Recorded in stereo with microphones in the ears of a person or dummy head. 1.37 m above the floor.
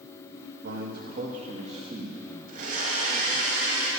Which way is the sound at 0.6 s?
50° right (ahead or behind).